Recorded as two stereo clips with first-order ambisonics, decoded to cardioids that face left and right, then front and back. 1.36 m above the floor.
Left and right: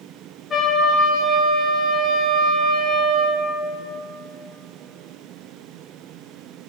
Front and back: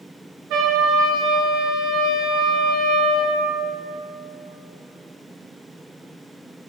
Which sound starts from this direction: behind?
A trumpet, at 0.5 s.